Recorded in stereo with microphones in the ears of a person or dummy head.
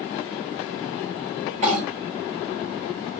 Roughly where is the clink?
Right.